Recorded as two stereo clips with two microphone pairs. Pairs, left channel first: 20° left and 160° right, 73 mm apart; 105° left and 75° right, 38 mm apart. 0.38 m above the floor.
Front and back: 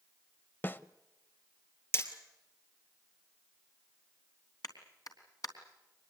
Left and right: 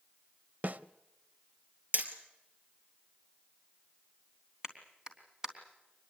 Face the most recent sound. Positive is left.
turn(degrees=-5)